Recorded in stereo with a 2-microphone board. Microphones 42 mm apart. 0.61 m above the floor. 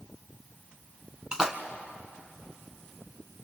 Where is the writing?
No writing in this recording.